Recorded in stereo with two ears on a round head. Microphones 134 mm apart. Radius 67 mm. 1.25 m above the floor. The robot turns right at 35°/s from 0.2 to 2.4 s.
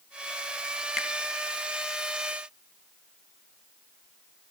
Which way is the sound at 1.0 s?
Centre (ahead or behind).